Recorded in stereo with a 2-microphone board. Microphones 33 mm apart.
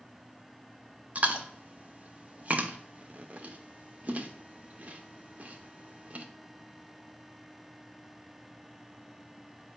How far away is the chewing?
About 0.6 m.